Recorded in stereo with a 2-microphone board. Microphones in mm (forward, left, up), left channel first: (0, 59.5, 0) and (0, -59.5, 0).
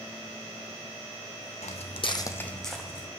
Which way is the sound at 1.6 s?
75° left (ahead or behind).